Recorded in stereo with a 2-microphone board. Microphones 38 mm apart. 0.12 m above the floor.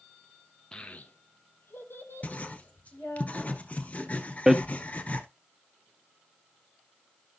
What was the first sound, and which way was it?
A child speaking, 20° left (ahead or behind).